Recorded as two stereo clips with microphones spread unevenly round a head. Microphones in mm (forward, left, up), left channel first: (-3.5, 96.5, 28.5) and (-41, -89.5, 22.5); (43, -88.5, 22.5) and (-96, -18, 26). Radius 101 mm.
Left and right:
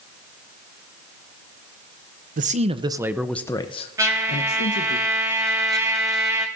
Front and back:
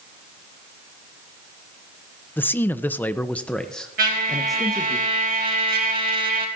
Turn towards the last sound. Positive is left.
turn(degrees=-175)